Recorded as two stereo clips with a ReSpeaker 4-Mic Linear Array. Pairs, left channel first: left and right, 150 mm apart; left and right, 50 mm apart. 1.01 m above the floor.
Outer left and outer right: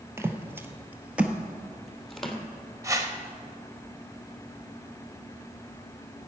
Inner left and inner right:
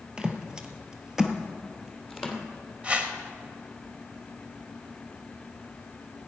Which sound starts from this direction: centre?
Footsteps, at 0.2 s.